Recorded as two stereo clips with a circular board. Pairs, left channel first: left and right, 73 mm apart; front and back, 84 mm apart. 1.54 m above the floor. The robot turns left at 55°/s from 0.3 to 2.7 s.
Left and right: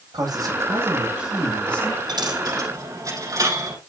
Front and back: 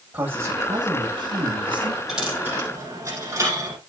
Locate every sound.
0.1 s a man speaking: 115° right, 7 m; by 2.0 s 150° left, 7 m
2.1 s a dropped coin: 95° right, 5.5 m; by 3.8 s 125° right, 5.5 m